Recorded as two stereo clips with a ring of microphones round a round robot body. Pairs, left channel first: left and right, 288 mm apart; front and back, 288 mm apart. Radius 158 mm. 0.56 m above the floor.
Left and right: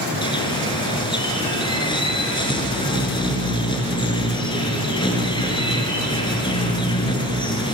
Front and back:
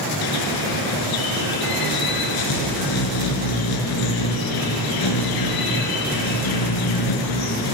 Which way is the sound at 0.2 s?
15° left.